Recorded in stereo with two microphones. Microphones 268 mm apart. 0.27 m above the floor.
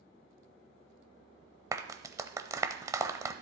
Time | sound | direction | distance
1.7 | a clap | 10° right (ahead or behind) | 0.7 m